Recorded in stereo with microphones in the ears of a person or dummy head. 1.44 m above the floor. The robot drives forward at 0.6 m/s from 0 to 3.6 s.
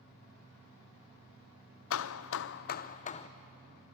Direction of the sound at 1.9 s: 75° left (ahead or behind).